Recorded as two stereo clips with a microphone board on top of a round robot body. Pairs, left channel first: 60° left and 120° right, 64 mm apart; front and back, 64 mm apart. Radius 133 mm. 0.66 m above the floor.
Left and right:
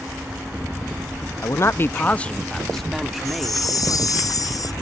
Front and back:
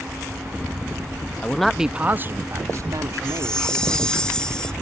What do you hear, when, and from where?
1.4 s a man speaking: 65° left; by 4.1 s 160° left
3.2 s a chime: 75° left